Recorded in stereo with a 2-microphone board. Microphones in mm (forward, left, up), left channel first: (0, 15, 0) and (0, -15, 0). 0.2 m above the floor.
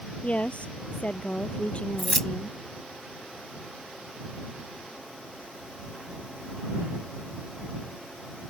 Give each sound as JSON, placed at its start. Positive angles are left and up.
{"t": 0.2, "sound": "a woman speaking", "side_deg": 40}
{"t": 2.0, "sound": "keys jangling", "side_deg": 10}